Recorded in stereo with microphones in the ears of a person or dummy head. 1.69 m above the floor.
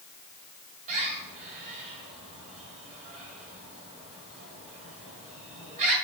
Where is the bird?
40° right (ahead or behind), 2 m.